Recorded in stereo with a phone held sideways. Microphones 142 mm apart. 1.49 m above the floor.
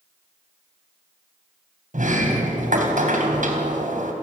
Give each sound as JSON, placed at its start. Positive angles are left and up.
{"t": 1.9, "sound": "a sliding door", "side_deg": -65, "distance_m": 3.5}